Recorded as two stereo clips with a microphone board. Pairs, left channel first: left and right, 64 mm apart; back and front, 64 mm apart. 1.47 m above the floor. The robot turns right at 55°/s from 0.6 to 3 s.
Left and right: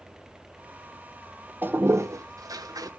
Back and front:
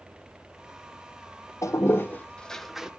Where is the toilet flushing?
150° right, 0.8 m; by 2.9 s 80° right, 0.8 m.